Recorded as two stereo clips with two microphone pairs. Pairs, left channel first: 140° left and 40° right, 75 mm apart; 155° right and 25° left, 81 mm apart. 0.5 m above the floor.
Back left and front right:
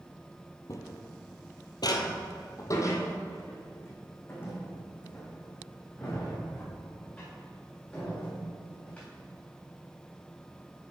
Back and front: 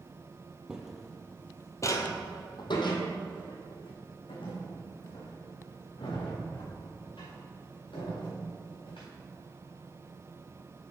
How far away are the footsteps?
About 1.0 m.